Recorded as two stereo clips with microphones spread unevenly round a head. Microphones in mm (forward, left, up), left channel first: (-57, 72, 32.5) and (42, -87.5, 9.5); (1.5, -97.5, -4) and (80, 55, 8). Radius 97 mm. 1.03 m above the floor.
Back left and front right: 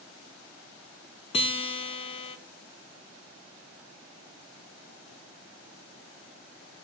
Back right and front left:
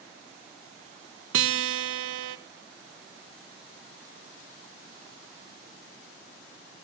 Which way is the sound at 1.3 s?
60° left.